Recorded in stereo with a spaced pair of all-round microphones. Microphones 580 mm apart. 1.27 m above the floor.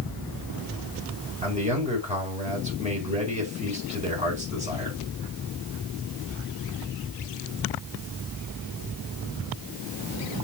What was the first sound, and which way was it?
A man speaking, 10° right (ahead or behind).